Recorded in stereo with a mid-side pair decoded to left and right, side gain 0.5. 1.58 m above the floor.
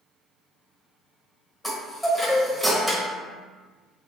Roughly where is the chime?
Ahead.